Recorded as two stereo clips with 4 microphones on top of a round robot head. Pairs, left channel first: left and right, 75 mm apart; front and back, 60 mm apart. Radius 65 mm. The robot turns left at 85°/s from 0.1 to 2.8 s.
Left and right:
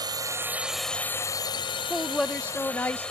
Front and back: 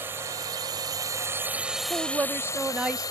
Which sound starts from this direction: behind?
A woman speaking, at 1.9 s.